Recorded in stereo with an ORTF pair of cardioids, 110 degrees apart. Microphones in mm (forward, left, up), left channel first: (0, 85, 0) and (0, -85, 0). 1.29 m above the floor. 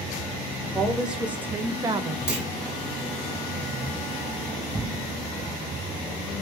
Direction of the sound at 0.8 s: Straight ahead.